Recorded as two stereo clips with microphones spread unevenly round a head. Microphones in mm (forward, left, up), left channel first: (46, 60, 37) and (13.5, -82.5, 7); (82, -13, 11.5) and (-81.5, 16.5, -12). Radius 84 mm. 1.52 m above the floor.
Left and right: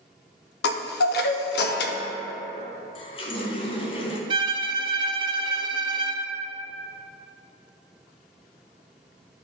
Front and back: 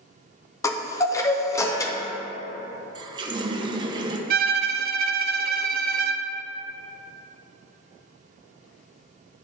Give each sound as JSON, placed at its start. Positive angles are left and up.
{"t": 0.6, "sound": "a chime", "azimuth_deg": 65, "distance_m": 0.6}
{"t": 3.0, "sound": "a running tap", "azimuth_deg": 105, "distance_m": 0.6}
{"t": 4.3, "sound": "a violin", "azimuth_deg": -160, "distance_m": 0.5}